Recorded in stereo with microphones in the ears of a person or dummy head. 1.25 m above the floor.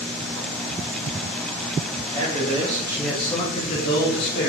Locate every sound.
2.1 s a man speaking: 35° right (ahead or behind), 1.0 m; by 4.5 s 60° left (ahead or behind), 0.9 m